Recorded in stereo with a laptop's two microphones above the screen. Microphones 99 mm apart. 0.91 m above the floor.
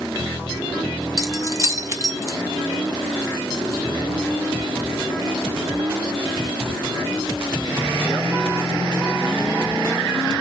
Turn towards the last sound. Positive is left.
turn(degrees=-35)  # may be behind; listen again after turning